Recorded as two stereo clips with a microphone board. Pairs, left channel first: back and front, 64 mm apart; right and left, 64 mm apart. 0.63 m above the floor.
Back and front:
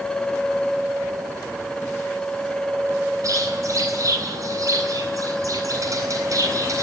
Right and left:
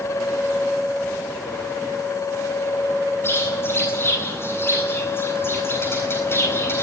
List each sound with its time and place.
3.2 s a bird: 35° right, 8.5 m